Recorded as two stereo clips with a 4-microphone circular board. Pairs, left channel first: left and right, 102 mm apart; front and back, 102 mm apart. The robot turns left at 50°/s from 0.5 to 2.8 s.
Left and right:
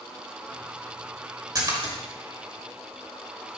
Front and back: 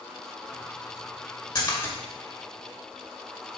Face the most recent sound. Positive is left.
turn(degrees=-105)